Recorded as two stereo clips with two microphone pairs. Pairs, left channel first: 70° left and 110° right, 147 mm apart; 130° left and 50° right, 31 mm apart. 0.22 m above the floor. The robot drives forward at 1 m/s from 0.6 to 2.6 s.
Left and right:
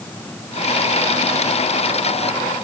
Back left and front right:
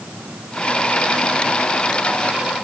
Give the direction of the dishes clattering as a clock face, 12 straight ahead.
I don't hear dishes clattering.